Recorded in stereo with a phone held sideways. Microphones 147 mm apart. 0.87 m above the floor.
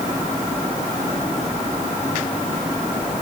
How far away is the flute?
No flute in this recording.